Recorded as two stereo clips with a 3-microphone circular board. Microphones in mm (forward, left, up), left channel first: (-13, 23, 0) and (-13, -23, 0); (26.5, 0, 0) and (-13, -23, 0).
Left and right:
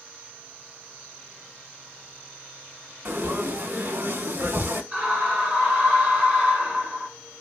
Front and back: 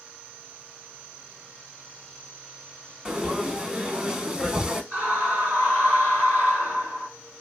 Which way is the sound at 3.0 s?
80° right.